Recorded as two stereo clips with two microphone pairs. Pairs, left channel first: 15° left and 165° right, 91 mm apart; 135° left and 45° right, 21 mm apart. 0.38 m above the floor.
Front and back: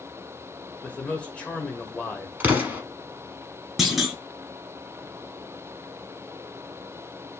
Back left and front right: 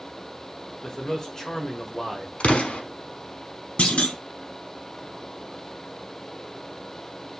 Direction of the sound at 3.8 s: 110° left.